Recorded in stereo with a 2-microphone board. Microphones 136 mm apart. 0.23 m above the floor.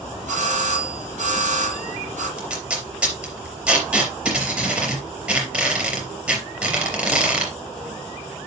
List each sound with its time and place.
0.3 s a doorbell: 70° right (ahead or behind), 7 m
2.4 s tape being pulled: 10° right (ahead or behind), 4 m